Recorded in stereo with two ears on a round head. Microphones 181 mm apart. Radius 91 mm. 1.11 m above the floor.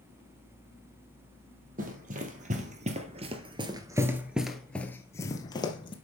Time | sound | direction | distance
1.8 | running footsteps | 45° right (ahead or behind) | 2 m